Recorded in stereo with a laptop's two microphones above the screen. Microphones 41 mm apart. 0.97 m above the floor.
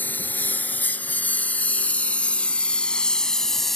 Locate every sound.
0.0 s a lawn mower: 50° left (ahead or behind); by 3.8 s 5° left (ahead or behind)